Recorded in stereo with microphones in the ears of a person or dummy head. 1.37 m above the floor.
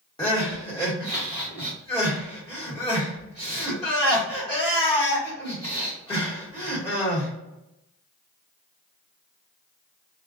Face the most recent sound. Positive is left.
turn(degrees=20)  # may be behind; listen again after turning